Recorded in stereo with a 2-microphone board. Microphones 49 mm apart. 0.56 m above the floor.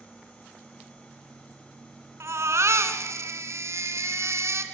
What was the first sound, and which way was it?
A baby crying, 85° right.